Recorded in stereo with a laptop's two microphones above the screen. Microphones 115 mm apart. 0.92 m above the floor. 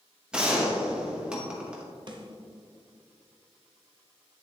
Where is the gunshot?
10° right (ahead or behind), 1.1 m.